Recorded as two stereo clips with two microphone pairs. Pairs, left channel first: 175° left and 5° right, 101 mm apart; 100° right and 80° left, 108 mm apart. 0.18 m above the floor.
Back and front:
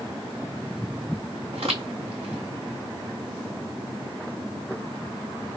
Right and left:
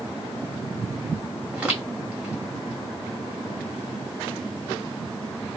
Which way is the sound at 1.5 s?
Straight ahead.